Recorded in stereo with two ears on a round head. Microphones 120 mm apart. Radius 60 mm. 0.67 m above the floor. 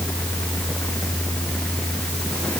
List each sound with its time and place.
Only background noise.